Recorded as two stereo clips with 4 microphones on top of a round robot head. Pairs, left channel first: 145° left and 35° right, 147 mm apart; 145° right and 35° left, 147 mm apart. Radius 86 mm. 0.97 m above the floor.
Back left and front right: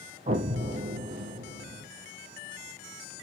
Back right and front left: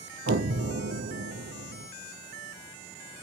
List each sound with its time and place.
0.3 s an explosion: 15° left, 0.6 m